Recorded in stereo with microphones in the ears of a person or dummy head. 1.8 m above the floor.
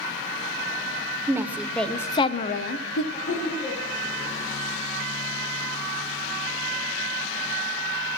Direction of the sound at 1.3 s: 15° right (ahead or behind).